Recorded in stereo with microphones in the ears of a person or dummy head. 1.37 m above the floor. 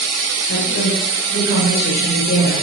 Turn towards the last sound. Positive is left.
turn(degrees=55)  # may be behind; listen again after turning